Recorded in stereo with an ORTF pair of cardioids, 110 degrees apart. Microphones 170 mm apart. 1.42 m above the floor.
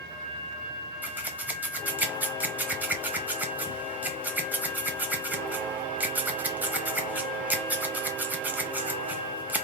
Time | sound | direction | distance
1.0 | scissors | 10° right | 1.0 m